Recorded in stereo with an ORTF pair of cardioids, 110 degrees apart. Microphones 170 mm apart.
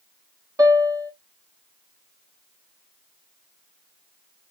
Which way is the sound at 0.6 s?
20° right.